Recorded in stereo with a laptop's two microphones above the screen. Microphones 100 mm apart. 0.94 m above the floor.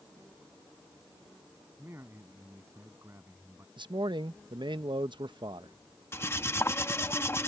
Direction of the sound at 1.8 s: 25° right (ahead or behind).